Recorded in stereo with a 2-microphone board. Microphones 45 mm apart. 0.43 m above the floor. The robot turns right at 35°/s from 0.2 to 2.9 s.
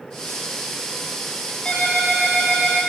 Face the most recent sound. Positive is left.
turn(degrees=-155)